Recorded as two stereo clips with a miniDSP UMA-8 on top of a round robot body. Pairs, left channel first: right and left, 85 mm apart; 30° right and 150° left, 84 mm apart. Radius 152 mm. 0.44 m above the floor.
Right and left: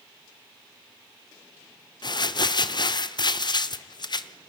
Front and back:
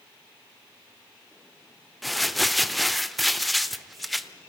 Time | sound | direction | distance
2.0 | crumpling | 120° right | 0.9 m